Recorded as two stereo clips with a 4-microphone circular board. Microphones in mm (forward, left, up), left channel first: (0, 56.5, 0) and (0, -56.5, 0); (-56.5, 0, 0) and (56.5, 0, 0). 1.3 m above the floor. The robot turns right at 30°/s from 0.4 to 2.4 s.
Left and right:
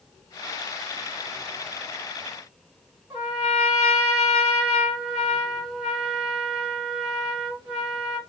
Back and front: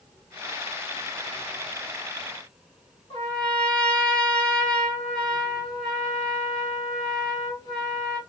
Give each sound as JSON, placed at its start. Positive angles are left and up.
{"t": 3.1, "sound": "a trumpet", "azimuth_deg": -145, "distance_m": 1.6}